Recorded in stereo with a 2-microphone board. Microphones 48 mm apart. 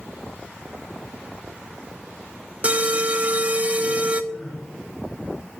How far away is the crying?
About 3 m.